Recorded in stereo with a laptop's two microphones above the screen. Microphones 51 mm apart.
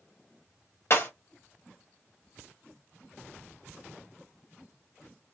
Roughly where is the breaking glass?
Left.